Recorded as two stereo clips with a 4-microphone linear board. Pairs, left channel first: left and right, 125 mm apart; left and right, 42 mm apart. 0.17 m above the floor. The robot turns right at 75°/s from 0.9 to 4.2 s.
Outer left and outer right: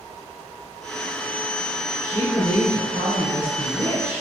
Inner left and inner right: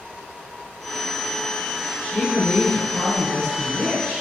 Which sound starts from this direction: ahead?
A woman speaking, at 2.0 s.